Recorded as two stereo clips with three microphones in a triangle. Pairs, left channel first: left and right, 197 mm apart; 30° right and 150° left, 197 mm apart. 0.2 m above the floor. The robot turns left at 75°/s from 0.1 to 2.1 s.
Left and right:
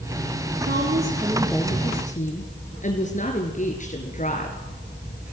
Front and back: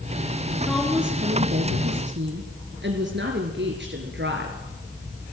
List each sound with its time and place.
0.6 s a woman speaking: 110° right, 3.5 m; by 4.6 s 135° left, 3.5 m